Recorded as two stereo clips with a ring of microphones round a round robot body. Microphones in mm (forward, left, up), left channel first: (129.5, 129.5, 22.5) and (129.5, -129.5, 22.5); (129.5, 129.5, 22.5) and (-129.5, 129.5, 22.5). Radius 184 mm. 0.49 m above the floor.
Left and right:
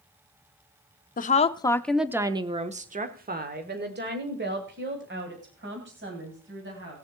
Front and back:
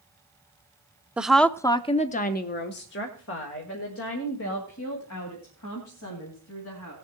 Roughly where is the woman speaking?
Left.